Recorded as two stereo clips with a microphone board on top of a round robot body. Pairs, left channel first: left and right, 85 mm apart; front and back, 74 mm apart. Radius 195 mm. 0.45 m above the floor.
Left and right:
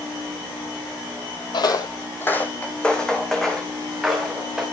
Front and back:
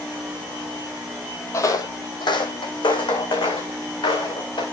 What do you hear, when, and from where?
1.5 s footsteps: 55° left, 1.4 m; by 4.6 s 5° right, 5 m